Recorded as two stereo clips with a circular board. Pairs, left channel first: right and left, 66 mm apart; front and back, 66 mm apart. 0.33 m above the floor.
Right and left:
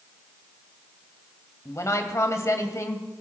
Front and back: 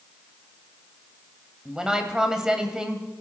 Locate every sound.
1.6 s a woman speaking: 105° right, 2.0 m